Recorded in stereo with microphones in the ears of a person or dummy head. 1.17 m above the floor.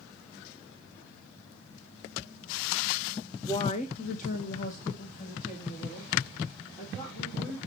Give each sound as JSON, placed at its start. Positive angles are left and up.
{"t": 3.5, "sound": "a woman speaking", "side_deg": 10, "distance_m": 0.6}